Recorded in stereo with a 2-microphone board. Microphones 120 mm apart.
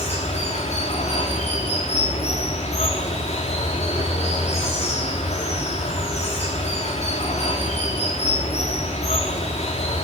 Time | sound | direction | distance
0.0 | running water | 60° left (ahead or behind) | 3.5 m